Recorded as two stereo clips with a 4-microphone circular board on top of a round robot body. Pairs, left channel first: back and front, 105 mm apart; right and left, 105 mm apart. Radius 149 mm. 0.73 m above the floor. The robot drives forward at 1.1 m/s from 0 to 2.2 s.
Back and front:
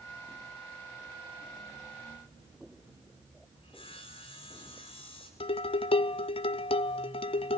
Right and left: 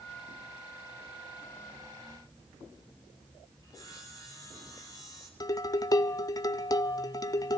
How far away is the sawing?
About 7.5 m.